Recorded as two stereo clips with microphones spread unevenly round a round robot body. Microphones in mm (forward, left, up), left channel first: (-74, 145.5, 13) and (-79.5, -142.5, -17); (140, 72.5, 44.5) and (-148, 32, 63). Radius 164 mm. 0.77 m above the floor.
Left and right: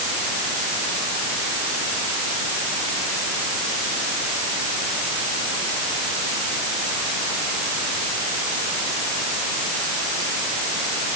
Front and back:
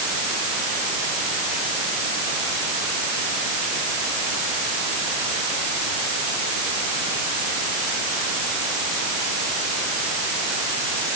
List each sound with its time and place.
Only background noise.